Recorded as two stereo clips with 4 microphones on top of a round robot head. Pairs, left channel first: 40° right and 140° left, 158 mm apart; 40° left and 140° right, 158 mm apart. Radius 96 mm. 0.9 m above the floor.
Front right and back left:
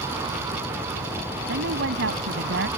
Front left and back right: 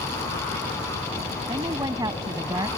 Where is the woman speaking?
150° left.